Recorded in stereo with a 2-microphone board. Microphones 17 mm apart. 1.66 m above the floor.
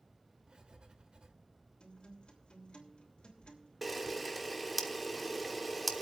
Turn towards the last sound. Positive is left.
turn(degrees=-5)  # may be behind; listen again after turning